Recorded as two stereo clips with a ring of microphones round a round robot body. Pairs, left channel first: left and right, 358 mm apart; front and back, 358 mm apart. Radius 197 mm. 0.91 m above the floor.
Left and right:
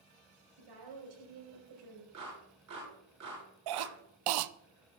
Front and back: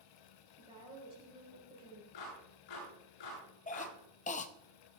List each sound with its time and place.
0.6 s a woman speaking: 105° right, 5 m
2.1 s a clap: 35° right, 9 m
3.7 s a cough: 70° right, 0.7 m